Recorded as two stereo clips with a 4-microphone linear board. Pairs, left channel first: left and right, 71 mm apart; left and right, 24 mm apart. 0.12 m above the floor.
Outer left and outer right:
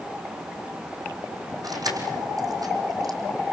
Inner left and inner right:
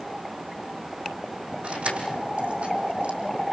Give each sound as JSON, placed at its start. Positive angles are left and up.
{"t": 1.6, "sound": "keys jangling", "side_deg": -65, "distance_m": 4.0}